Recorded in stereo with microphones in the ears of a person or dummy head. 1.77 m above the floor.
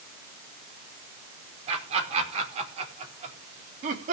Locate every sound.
1.7 s laughter: 35° right (ahead or behind), 5 m; by 4.1 s 45° right (ahead or behind), 3.5 m